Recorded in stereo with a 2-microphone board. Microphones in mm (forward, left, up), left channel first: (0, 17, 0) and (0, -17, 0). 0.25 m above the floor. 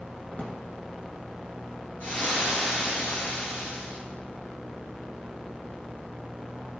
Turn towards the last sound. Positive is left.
turn(degrees=55)  # may be behind; listen again after turning